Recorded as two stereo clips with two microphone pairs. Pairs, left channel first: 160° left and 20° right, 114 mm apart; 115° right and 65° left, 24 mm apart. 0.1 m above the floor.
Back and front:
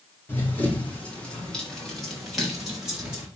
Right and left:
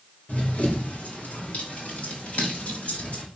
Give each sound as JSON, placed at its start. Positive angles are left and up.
{"t": 0.3, "sound": "running footsteps", "azimuth_deg": -125, "distance_m": 5.0}